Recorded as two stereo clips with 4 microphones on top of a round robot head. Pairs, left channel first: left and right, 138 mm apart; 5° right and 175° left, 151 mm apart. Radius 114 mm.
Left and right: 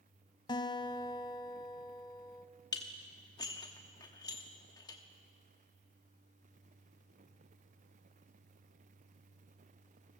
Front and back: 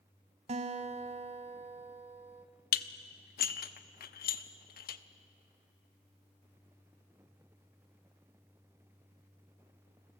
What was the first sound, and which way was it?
A guitar, 140° left.